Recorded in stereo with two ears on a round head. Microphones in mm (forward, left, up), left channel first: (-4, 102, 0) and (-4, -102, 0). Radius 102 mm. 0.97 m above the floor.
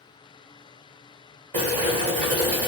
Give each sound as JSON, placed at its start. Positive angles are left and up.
{"t": 1.5, "sound": "boiling", "side_deg": -35, "distance_m": 1.6}